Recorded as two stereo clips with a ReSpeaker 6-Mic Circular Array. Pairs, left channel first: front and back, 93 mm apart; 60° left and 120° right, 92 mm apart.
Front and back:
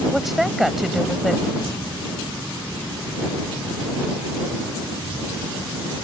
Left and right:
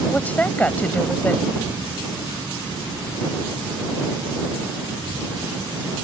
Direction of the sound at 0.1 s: 95° left.